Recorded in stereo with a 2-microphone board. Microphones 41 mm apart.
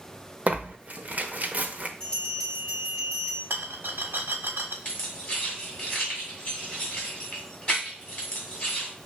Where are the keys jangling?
35° left (ahead or behind), 2 m.